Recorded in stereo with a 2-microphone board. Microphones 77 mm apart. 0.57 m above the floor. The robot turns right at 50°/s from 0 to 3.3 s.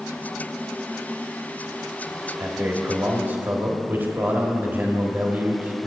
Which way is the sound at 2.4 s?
100° right.